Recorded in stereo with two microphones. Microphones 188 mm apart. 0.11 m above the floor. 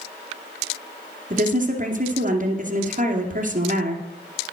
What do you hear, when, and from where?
1.3 s a woman speaking: 45° right (ahead or behind), 2 m